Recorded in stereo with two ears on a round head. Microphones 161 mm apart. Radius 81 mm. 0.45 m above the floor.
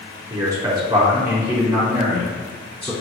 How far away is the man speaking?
About 1.1 m.